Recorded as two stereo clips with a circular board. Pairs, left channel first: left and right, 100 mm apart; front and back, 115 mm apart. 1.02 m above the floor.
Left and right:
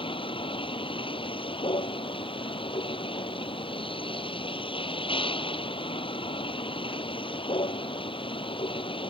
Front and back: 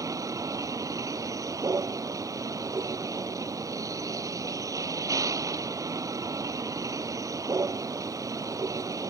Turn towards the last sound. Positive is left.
turn(degrees=120)